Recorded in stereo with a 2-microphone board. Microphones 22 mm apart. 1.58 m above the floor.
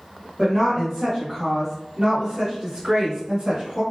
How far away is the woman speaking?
About 1.9 m.